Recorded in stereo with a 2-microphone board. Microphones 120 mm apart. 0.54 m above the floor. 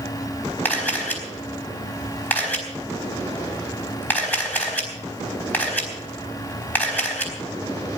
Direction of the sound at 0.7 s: 15° left (ahead or behind).